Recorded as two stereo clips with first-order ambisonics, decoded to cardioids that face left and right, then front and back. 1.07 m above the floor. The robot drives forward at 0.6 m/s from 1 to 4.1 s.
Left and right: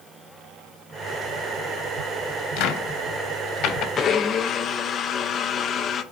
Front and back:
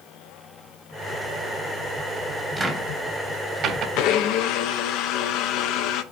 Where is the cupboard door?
95° left, 1.1 m; by 3.9 s 130° left, 1.4 m.